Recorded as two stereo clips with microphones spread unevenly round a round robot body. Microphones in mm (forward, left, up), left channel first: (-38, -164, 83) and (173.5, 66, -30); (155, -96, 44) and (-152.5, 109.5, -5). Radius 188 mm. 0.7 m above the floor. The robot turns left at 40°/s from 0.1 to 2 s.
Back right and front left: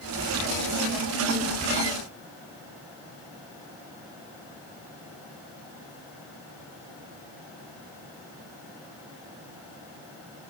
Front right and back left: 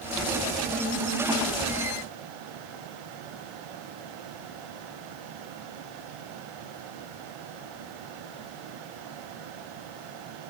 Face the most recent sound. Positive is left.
No sound to turn to.